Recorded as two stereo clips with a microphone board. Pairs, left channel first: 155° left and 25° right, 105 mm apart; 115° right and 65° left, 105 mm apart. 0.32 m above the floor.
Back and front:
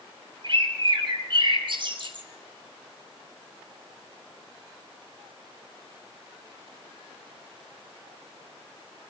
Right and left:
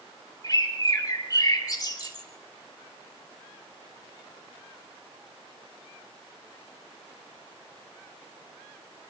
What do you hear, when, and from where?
0.4 s a bird: 55° right, 1.9 m